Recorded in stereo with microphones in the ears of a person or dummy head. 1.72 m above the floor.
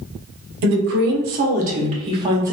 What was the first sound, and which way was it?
A woman speaking, 65° right (ahead or behind).